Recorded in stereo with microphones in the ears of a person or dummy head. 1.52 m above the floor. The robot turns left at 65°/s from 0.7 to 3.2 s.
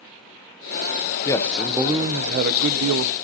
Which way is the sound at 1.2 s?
25° left.